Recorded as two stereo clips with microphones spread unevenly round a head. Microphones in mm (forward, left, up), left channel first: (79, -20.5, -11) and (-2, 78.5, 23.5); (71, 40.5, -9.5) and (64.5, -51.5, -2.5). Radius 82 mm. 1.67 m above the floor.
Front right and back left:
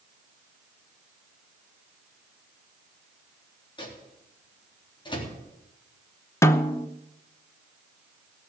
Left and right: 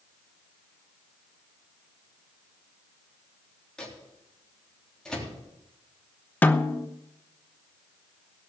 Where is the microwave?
5° left, 3.5 m.